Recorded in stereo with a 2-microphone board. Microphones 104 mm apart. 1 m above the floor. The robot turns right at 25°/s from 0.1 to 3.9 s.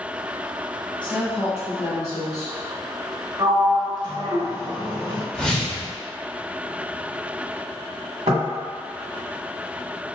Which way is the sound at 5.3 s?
5° left (ahead or behind).